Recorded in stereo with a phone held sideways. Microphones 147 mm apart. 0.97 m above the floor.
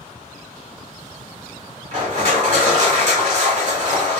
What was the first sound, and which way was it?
Crushing, 55° right (ahead or behind).